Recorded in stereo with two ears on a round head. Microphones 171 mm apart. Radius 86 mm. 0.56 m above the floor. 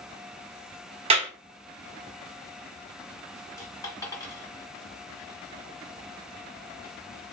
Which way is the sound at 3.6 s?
20° left (ahead or behind).